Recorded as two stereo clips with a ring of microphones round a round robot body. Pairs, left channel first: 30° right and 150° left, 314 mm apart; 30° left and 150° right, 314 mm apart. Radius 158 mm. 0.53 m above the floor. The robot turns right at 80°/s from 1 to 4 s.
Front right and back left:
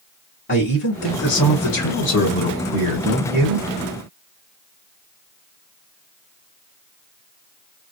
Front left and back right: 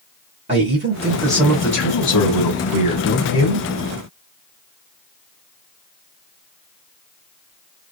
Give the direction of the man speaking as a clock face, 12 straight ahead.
3 o'clock.